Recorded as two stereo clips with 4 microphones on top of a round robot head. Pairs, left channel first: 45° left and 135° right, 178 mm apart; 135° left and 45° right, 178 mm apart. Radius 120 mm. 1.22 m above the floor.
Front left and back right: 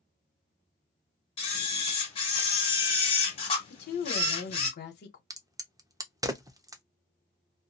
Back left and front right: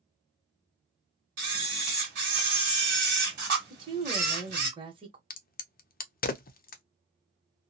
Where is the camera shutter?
5° right, 1.3 m.